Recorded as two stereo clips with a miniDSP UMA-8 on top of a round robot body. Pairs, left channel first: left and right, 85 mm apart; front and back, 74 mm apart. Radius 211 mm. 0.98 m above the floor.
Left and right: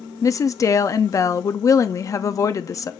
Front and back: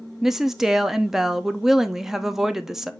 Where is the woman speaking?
100° left, 0.6 m.